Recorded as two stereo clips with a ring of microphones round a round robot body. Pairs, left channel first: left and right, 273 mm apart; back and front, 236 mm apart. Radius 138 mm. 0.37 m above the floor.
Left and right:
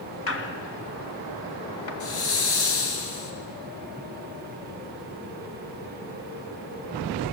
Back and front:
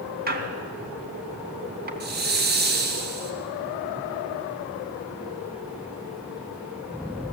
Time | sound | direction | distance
0.3 | a squeak | 50° left | 2.5 m
2.0 | a hiss | 50° left | 3 m